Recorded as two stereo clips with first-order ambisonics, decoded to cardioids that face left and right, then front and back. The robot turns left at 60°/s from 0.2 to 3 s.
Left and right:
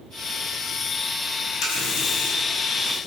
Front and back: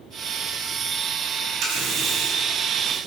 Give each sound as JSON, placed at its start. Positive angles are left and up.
{"t": 1.6, "sound": "a running tap", "azimuth_deg": 135, "distance_m": 3.5}